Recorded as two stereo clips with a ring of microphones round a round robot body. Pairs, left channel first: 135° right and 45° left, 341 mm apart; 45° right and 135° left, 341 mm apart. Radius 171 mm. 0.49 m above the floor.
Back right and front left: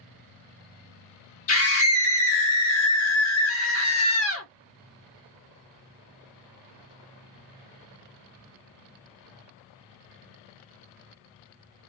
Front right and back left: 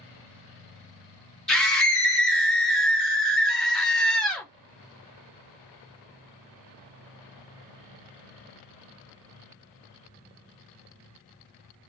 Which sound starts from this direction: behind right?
A scream, at 1.5 s.